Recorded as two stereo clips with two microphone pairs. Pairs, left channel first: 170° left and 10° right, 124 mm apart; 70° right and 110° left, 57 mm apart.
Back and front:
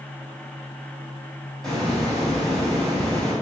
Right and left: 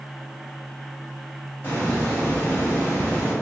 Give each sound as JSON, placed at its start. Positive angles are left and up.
{"t": 1.6, "sound": "a hiss", "azimuth_deg": -105, "distance_m": 1.4}